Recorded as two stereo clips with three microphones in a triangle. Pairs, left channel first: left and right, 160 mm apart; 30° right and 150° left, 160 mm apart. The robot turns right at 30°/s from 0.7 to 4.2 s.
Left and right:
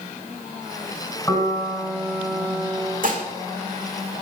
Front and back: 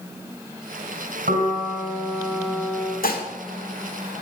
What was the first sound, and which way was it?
A piano, 165° left.